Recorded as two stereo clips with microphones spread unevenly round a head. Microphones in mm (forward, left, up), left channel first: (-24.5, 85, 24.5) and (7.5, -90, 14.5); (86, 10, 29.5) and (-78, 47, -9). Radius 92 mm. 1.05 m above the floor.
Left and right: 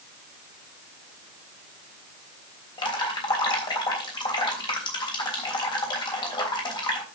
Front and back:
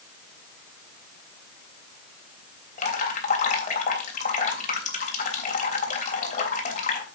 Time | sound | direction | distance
2.8 | dripping | 35° left | 3 m